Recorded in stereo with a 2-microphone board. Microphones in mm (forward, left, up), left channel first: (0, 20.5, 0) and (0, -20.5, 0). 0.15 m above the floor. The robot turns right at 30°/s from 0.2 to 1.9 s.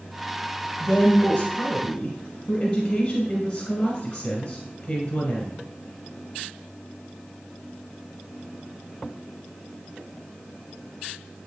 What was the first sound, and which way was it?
A woman speaking, 90° left.